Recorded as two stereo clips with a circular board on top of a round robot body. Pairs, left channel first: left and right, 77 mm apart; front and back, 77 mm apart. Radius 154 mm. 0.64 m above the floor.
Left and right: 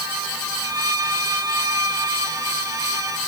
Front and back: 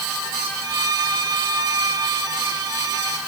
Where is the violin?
140° right.